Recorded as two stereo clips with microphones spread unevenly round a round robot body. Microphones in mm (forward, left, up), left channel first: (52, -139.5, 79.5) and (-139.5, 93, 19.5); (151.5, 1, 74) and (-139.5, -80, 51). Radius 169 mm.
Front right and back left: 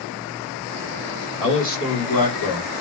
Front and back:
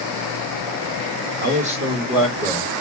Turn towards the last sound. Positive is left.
turn(degrees=-65)